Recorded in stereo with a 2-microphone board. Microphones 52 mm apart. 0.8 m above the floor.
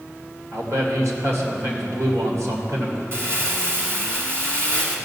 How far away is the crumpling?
About 2 m.